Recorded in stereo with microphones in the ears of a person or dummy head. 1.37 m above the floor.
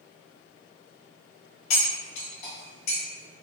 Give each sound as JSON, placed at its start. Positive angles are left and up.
{"t": 1.7, "sound": "cutlery clinking", "side_deg": 45, "distance_m": 1.3}